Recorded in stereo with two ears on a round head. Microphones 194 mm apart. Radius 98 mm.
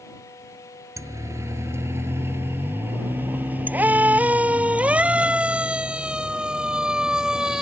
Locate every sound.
1.0 s a siren: 15° right (ahead or behind); by 7.6 s centre (ahead or behind)